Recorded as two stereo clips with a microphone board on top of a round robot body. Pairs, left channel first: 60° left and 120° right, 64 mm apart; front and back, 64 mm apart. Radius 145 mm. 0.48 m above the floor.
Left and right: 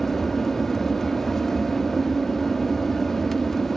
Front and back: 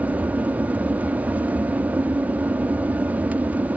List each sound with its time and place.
0.0 s an aircraft: 145° left